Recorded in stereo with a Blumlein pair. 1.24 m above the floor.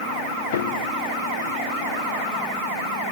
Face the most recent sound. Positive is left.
turn(degrees=60)